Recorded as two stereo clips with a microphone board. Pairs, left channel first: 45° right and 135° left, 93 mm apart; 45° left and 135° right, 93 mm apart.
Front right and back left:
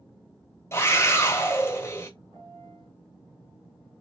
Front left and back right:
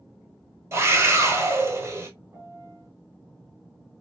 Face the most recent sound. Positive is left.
turn(degrees=160)